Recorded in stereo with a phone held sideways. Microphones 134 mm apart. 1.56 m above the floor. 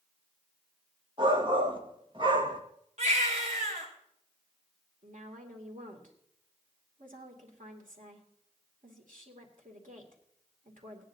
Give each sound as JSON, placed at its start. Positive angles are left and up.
{"t": 1.2, "sound": "a shout", "side_deg": -35, "distance_m": 1.7}
{"t": 3.0, "sound": "a baby crying", "side_deg": -60, "distance_m": 4.0}
{"t": 5.0, "sound": "a woman speaking", "side_deg": -80, "distance_m": 2.5}